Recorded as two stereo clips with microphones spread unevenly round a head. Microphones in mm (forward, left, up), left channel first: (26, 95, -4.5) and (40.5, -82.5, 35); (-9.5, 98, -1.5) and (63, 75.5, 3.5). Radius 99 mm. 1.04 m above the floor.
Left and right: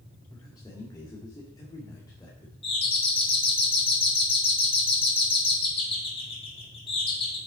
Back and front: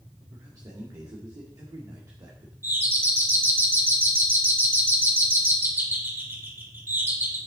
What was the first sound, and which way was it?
A man speaking, 25° left.